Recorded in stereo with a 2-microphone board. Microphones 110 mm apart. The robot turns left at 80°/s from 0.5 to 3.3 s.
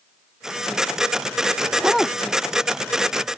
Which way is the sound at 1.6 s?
150° right.